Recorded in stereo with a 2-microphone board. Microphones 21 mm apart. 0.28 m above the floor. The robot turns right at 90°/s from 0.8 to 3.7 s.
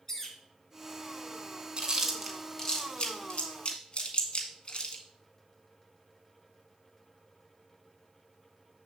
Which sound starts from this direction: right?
Chewing, at 1.8 s.